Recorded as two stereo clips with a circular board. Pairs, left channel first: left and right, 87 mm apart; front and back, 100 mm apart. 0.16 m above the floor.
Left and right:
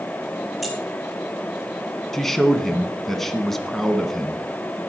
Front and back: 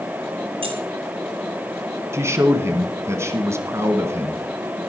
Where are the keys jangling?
Straight behind, 3 m.